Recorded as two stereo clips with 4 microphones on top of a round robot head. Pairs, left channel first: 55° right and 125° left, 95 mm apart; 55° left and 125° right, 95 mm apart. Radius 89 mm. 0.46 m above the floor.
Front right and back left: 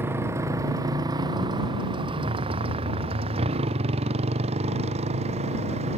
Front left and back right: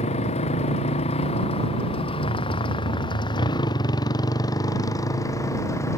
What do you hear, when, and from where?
0.0 s a motorcycle: 55° left; by 6.0 s 120° left